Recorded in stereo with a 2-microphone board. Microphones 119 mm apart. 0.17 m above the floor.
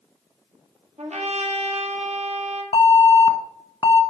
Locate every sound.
1.0 s a trumpet: 70° right (ahead or behind), 2.5 m
2.7 s an alarm: 50° left (ahead or behind), 1.3 m